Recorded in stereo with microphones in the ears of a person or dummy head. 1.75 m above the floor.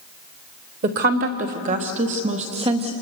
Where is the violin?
No violin in this recording.